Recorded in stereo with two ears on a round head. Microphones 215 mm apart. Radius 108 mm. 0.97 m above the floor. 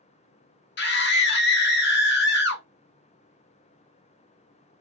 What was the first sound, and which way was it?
A scream, 45° left (ahead or behind).